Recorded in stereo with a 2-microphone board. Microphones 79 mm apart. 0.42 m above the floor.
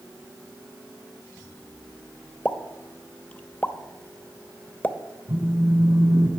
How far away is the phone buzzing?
About 1.9 m.